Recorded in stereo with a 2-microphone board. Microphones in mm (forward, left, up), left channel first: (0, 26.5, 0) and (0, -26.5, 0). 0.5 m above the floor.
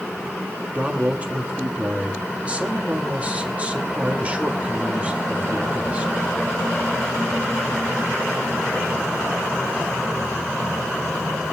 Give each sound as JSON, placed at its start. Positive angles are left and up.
{"t": 0.8, "sound": "a man speaking", "side_deg": -25, "distance_m": 1.7}